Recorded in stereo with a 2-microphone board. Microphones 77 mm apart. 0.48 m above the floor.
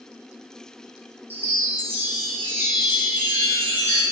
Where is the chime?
30° right (ahead or behind), 0.5 m.